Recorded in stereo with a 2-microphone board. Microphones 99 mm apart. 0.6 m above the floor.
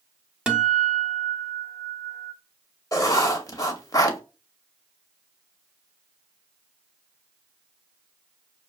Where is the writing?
35° left (ahead or behind), 0.7 m.